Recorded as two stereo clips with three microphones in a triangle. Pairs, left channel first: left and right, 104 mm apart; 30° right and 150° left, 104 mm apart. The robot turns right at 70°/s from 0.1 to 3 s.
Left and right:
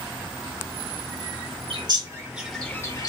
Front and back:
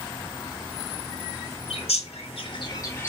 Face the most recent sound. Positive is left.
turn(degrees=35)